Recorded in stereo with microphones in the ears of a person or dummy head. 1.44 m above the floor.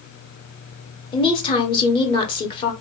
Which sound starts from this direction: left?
A woman speaking, at 1.1 s.